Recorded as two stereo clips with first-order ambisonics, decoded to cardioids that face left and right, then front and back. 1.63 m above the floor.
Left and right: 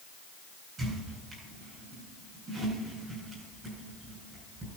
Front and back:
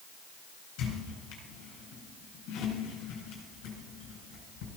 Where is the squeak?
25° right, 4 m.